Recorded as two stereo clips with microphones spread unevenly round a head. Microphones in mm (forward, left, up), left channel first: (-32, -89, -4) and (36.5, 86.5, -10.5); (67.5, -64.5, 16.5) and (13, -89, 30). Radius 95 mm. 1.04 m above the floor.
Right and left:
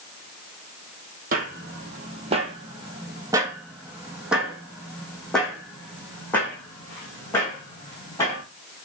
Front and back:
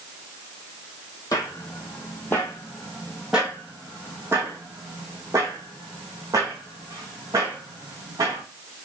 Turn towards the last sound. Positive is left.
turn(degrees=175)